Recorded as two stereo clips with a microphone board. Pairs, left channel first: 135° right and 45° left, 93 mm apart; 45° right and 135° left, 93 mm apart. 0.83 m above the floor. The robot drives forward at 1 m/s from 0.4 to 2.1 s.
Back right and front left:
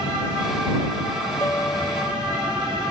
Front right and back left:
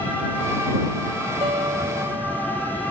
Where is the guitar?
160° left.